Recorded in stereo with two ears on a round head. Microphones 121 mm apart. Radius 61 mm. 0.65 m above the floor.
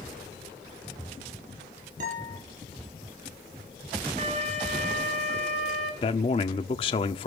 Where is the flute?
55° right (ahead or behind), 3 m.